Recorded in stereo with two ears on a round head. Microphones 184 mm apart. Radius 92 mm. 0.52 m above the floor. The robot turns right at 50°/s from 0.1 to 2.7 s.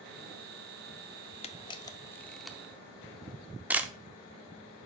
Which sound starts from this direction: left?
A camera shutter, at 1.4 s.